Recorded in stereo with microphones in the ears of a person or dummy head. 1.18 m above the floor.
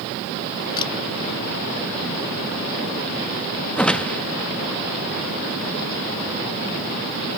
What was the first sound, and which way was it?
A camera shutter, 20° left (ahead or behind).